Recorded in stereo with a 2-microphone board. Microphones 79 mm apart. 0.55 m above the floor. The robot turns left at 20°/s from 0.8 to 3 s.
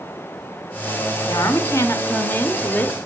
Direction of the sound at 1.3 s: 50° left.